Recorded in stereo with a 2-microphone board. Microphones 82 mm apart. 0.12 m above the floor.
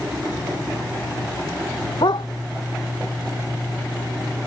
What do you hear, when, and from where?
2.0 s a dog barking: 70° left (ahead or behind)